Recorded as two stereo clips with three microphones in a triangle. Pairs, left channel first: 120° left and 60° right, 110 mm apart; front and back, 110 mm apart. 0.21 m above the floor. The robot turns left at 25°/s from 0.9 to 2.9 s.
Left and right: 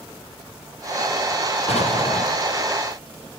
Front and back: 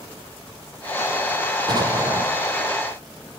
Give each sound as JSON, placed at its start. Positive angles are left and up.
{"t": 1.7, "sound": "an explosion", "azimuth_deg": 135, "distance_m": 4.5}